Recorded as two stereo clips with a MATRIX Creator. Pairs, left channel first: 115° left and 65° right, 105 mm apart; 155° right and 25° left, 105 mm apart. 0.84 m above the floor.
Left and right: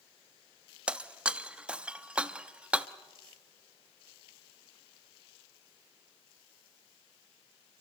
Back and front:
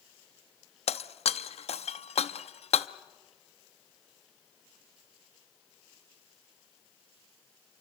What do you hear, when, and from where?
0.9 s breaking glass: 145° right, 0.5 m